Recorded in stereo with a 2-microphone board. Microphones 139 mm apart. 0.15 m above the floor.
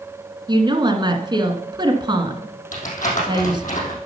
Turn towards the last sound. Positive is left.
turn(degrees=75)  # may be behind; listen again after turning